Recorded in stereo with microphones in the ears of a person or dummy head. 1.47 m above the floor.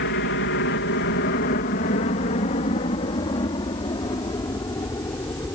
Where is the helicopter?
60° left (ahead or behind); by 5.5 s 15° left (ahead or behind).